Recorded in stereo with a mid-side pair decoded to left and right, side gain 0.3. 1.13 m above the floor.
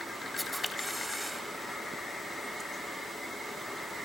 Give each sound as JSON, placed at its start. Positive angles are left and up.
{"t": 0.4, "sound": "a camera shutter", "azimuth_deg": 10, "distance_m": 4.0}